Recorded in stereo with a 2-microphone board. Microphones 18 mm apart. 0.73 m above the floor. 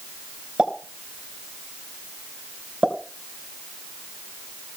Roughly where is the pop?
Right.